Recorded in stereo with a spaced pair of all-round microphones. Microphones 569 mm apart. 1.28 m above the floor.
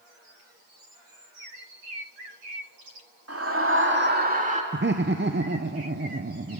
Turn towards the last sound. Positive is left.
turn(degrees=-20)  # may be behind; listen again after turning